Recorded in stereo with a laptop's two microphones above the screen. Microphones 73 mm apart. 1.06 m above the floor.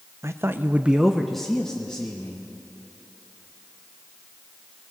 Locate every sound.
0.2 s a man speaking: 35° right (ahead or behind), 0.6 m; by 2.4 s 15° left (ahead or behind), 1.8 m